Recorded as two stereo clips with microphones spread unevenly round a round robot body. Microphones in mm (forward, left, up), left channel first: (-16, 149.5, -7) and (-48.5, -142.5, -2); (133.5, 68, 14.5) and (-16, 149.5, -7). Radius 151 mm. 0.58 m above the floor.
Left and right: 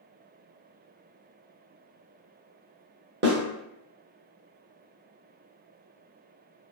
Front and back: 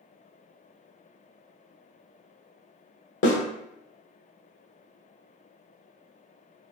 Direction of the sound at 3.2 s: 35° right.